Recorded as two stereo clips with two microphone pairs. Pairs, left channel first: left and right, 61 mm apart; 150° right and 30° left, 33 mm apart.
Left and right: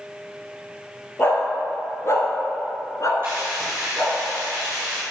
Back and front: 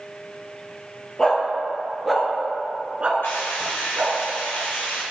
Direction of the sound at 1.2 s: 140° left.